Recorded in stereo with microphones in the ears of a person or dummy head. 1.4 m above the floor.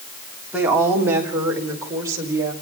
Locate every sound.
0.5 s a woman speaking: 10° right (ahead or behind), 3.5 m; by 2.5 s 20° right (ahead or behind), 6 m